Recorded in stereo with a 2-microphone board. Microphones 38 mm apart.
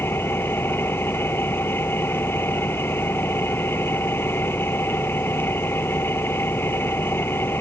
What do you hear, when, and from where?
0.0 s an engine running: 75° left (ahead or behind)